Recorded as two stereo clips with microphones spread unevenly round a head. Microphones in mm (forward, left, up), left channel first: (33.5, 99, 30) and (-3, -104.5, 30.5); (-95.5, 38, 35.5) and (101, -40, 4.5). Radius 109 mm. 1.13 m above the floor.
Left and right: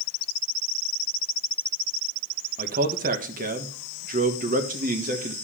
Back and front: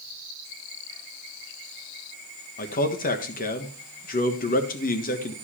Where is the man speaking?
150° right, 1.4 m.